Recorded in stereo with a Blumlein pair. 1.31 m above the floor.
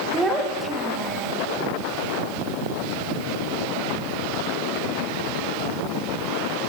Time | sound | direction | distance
0.1 | a child speaking | 10° right | 0.7 m